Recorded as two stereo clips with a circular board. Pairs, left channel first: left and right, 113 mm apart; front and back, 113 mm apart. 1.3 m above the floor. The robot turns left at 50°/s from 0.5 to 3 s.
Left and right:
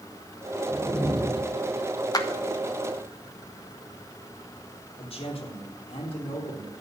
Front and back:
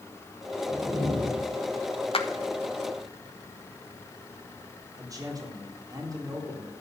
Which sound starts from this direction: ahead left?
A clap, at 2.1 s.